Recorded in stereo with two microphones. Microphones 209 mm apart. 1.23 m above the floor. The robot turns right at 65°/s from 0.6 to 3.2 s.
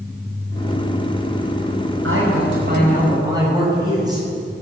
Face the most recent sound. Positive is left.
turn(degrees=-20)